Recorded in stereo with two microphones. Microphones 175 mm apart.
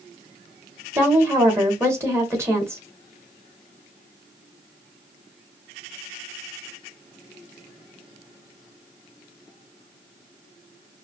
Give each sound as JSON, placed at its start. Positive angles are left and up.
{"t": 0.9, "sound": "a woman speaking", "side_deg": -15, "distance_m": 2.0}